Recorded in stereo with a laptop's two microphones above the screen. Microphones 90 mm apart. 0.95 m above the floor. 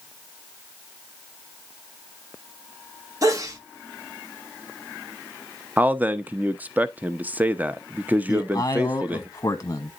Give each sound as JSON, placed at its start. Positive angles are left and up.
{"t": 3.2, "sound": "a sneeze", "side_deg": -35, "distance_m": 1.1}
{"t": 5.8, "sound": "a man speaking", "side_deg": -20, "distance_m": 0.7}
{"t": 8.3, "sound": "a man speaking", "side_deg": 35, "distance_m": 0.9}